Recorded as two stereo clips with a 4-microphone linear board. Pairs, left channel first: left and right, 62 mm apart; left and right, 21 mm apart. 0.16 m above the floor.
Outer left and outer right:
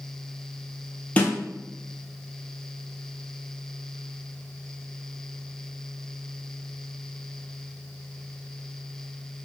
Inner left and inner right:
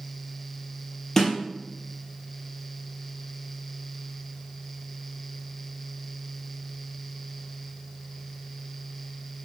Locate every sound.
1.2 s a snare drum: 25° left (ahead or behind), 1.1 m